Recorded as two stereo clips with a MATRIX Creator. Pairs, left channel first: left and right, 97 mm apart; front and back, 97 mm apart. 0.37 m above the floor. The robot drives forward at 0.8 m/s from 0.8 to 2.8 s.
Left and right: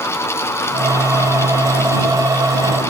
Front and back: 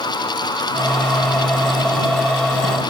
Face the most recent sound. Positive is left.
No sound to turn to.